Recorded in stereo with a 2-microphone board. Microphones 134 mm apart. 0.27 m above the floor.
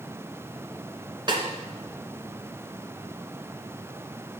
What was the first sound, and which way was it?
A snare drum, 35° right (ahead or behind).